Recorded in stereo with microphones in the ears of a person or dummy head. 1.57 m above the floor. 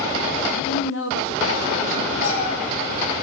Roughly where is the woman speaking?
Left.